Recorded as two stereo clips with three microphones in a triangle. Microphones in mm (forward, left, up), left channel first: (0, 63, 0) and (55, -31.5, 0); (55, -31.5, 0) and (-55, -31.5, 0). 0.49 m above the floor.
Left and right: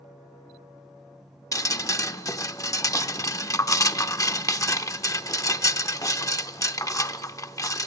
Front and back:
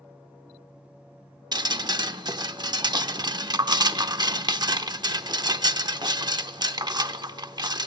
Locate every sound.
1.5 s dripping: 160° left, 0.7 m